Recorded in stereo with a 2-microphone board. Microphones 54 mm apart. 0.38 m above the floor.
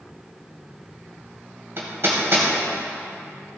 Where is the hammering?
50° right (ahead or behind), 1.7 m.